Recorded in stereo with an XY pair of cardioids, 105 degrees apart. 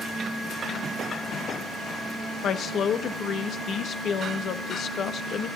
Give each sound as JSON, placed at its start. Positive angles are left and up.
{"t": 2.4, "sound": "a woman speaking", "azimuth_deg": 60, "distance_m": 1.1}